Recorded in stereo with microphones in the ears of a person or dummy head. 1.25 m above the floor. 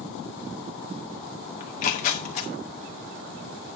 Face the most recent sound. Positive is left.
turn(degrees=45)  # may be behind; listen again after turning